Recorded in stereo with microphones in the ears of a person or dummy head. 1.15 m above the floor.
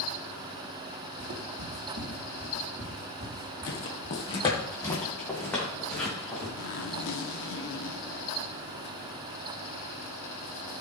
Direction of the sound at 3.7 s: 50° left (ahead or behind).